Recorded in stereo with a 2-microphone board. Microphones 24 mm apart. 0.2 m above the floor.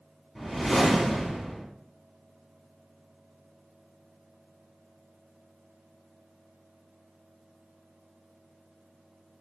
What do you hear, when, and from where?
0.3 s a whoosh: centre (ahead or behind), 1.1 m